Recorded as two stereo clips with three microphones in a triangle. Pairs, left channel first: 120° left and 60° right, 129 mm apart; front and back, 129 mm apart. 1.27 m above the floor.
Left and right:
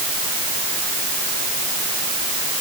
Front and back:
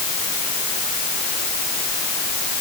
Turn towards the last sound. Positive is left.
No sound to turn to.